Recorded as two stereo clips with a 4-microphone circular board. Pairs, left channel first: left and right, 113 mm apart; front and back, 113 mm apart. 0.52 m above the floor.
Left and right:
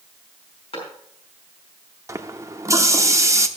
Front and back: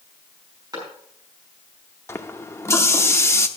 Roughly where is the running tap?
Ahead right.